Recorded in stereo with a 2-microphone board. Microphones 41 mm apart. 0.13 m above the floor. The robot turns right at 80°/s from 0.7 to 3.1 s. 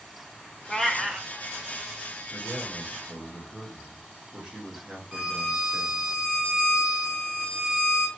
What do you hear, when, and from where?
0.7 s a cat meowing: 155° left, 0.5 m; by 1.3 s 160° right, 0.5 m
2.3 s a man speaking: centre (ahead or behind), 1.7 m; by 6.1 s 25° right (ahead or behind), 1.7 m
5.1 s a violin: 15° right (ahead or behind), 1.8 m